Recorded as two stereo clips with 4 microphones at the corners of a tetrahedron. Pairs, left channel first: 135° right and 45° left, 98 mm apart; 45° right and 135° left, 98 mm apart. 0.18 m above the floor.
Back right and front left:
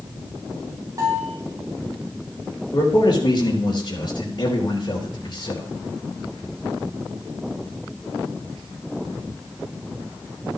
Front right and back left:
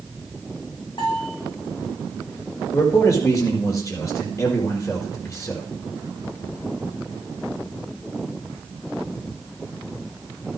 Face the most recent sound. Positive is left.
turn(degrees=-100)